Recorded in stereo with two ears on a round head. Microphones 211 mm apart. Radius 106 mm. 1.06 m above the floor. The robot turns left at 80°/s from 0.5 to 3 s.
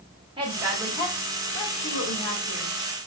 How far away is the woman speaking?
About 1.3 m.